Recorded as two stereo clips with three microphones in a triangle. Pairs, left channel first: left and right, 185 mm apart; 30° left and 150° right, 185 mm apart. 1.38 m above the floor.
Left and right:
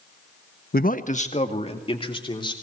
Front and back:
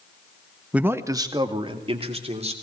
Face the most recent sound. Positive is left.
turn(degrees=155)